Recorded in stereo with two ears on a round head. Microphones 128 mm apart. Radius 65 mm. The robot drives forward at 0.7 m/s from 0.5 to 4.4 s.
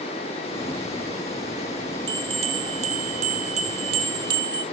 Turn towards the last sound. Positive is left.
turn(degrees=-30)  # may be behind; listen again after turning